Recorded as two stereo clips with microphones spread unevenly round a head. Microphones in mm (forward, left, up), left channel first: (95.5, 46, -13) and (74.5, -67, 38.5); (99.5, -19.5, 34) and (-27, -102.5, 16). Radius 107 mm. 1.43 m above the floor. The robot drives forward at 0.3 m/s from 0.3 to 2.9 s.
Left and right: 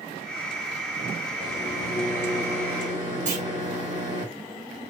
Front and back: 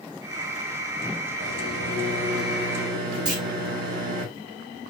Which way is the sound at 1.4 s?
155° right.